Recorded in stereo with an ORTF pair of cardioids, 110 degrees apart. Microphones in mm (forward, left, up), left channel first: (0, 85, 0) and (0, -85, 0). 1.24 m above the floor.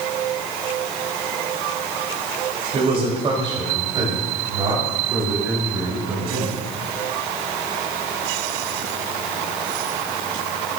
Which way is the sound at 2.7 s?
40° right.